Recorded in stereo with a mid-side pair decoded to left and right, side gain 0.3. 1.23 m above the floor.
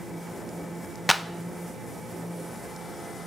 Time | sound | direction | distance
1.1 | a clap | 10° left | 0.6 m